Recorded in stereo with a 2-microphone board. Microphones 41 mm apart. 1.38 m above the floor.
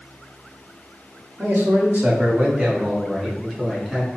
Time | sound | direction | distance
1.4 | a man speaking | 60° right (ahead or behind) | 1.1 m